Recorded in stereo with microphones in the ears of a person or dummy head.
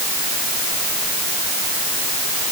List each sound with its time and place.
Only background noise.